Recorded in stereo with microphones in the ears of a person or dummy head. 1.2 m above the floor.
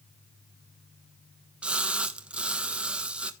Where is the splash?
5° right (ahead or behind), 1.1 m.